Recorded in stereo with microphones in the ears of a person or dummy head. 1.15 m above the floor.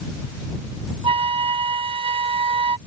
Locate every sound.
1.0 s a flute: 30° right (ahead or behind)